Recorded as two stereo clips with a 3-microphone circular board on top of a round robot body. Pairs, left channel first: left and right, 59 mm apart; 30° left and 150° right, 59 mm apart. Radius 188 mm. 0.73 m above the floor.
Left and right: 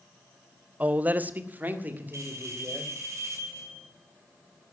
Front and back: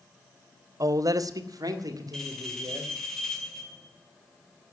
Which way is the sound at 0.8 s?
155° right.